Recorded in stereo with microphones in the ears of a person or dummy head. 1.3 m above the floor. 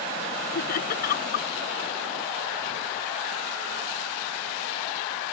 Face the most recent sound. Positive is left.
turn(degrees=55)  # may be behind; listen again after turning